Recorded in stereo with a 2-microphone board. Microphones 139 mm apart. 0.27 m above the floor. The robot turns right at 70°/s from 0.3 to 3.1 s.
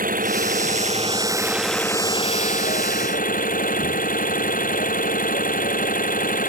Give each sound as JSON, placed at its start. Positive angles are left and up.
{"t": 0.0, "sound": "an engine running", "azimuth_deg": -95}